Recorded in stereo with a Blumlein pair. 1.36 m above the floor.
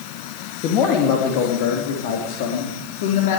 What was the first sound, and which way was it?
A man speaking, 35° left.